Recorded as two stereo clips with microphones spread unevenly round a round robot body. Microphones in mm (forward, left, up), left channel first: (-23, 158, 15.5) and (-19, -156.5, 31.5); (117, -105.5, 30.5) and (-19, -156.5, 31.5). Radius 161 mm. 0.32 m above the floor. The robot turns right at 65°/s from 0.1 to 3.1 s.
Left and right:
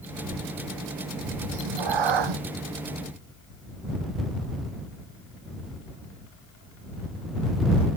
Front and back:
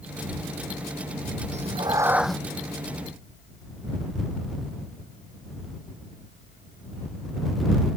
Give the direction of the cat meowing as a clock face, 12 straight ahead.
4 o'clock.